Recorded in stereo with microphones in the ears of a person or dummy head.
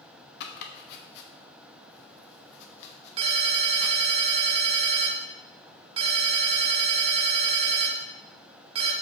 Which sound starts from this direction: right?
A ringtone, at 3.2 s.